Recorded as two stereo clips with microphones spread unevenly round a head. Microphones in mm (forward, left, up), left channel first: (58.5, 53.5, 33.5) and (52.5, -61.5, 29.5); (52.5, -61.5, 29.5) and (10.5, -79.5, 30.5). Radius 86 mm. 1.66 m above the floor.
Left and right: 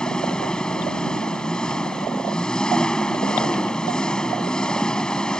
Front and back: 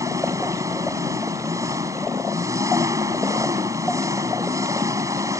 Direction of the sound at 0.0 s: 175° left.